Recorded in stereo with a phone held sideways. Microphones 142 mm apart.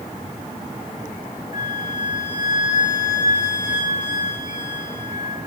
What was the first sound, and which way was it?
A flute, 65° left (ahead or behind).